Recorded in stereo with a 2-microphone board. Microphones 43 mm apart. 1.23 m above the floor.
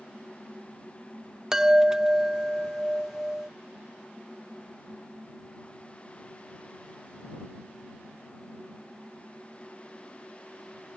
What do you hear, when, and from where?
1.5 s a chime: 15° right (ahead or behind)